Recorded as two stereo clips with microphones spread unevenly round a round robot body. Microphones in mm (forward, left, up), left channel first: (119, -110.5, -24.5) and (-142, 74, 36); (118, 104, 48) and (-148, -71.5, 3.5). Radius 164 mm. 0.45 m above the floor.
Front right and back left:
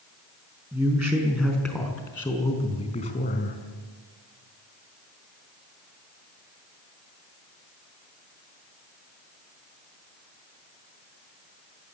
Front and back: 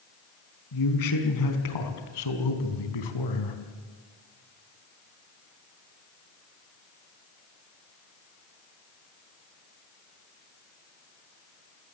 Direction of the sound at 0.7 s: 60° left.